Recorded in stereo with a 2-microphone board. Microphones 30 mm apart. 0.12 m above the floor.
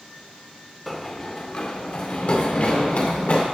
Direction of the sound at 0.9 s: 5° left (ahead or behind).